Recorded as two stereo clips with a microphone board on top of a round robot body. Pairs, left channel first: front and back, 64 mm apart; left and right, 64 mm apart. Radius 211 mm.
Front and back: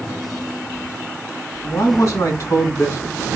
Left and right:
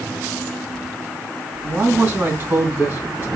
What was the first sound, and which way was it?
A man speaking, 40° right.